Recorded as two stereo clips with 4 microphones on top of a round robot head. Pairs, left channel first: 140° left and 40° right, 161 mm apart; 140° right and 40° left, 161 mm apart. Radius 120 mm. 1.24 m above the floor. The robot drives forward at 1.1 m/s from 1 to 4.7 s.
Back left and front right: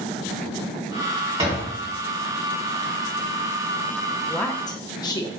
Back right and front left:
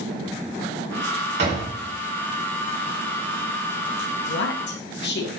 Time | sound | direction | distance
1.4 | a door slam | 20° left | 3.5 m
4.3 | a woman speaking | 130° right | 0.6 m